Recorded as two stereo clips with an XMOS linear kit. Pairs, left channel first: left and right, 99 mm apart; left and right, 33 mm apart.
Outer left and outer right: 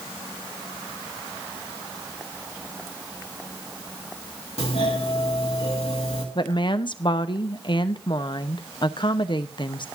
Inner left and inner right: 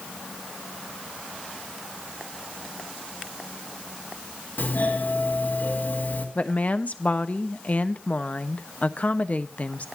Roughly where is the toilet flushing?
I don't hear a toilet flushing.